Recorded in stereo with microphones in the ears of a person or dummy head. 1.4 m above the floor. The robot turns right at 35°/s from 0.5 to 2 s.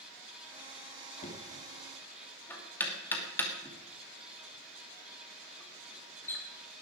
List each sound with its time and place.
1.2 s knocking: 40° left (ahead or behind), 2.5 m; by 6.4 s 15° left (ahead or behind), 2.5 m